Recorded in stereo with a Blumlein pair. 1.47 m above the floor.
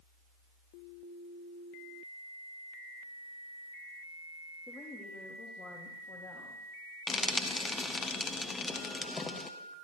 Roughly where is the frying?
Ahead.